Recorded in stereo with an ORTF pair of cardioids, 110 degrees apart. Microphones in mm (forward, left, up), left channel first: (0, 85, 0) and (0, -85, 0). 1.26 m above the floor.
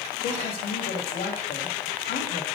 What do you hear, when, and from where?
0.2 s a woman speaking: 60° left, 2 m